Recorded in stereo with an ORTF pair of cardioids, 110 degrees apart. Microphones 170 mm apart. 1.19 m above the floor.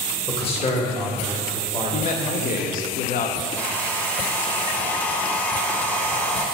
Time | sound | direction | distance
0.3 | a man speaking | 30° left | 1.5 m
1.9 | a man speaking | 55° left | 0.9 m
3.6 | a hair dryer | 10° left | 0.9 m